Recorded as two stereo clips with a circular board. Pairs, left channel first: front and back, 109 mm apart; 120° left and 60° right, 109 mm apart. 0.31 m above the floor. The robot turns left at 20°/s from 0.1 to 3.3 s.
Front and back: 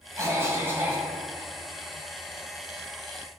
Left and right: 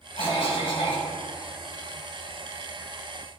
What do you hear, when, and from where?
0.2 s a cough: 125° left, 2.5 m; by 1.1 s 105° left, 2.5 m